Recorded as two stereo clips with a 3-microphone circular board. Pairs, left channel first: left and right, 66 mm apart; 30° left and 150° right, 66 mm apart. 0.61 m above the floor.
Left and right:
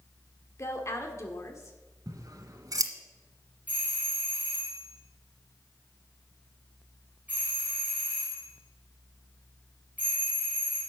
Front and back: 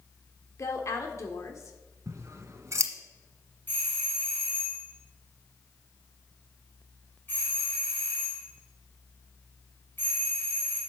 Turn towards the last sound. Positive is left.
turn(degrees=-25)